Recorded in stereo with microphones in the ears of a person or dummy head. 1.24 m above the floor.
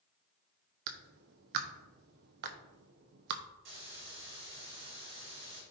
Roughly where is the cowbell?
No cowbell in this recording.